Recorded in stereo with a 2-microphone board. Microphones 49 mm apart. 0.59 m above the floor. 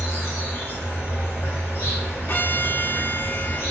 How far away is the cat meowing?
No cat meowing in this recording.